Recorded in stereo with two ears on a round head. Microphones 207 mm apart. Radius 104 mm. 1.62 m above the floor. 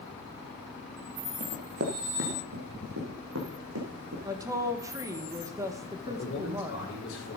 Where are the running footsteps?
40° right (ahead or behind), 2 m; by 4.2 s 65° right (ahead or behind), 5 m.